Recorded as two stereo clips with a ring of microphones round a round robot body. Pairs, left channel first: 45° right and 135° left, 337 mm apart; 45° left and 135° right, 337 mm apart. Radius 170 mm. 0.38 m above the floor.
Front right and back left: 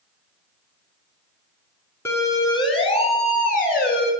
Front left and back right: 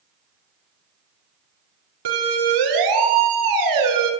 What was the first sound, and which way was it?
A siren, 130° right.